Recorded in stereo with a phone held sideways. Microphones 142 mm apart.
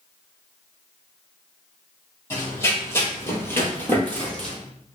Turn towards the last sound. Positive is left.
turn(degrees=5)  # may be behind; listen again after turning